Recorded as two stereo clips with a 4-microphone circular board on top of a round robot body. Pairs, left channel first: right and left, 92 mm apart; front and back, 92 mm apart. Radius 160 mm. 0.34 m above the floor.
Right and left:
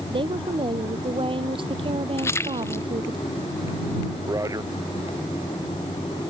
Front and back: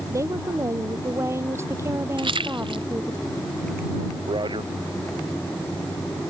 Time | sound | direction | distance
0.1 | a woman speaking | 120° left | ?
2.2 | a splash | 150° right | ?
4.3 | a man speaking | 145° left | ?